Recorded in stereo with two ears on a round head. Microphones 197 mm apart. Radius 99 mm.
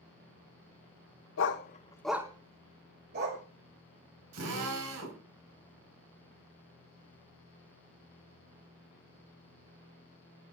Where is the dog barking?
60° left (ahead or behind), 0.9 m; by 3.4 s 50° right (ahead or behind), 2 m.